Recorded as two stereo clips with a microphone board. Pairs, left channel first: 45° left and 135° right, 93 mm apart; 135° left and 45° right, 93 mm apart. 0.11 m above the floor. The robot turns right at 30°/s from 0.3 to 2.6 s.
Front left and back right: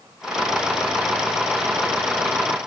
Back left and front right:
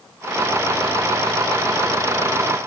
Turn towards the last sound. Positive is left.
No sound to turn to.